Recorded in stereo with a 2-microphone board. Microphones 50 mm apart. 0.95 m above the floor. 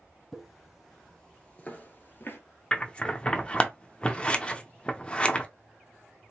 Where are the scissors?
20° left (ahead or behind), 0.6 m.